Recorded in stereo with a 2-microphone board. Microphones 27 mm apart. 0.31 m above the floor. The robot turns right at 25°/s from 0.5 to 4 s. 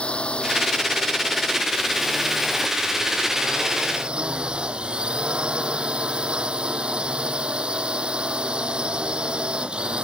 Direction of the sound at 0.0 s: 135° left.